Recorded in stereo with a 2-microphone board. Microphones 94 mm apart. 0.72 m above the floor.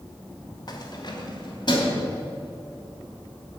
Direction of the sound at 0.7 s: 45° left (ahead or behind).